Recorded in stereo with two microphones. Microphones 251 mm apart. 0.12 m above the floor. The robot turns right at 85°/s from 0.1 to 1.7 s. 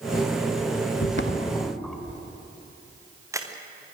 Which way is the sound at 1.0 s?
70° left (ahead or behind).